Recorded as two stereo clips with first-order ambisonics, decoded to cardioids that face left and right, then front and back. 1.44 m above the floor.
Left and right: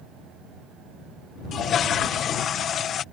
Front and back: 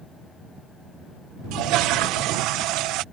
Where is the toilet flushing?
150° left.